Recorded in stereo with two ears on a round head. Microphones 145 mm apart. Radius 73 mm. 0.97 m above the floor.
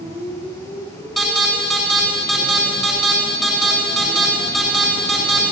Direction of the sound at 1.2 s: 5° left (ahead or behind).